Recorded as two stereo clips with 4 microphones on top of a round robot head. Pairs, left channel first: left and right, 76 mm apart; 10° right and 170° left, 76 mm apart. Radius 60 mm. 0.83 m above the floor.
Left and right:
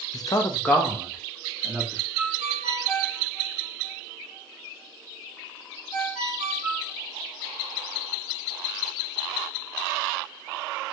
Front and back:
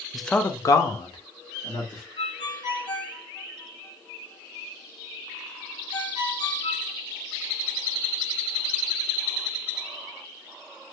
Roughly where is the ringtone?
Ahead.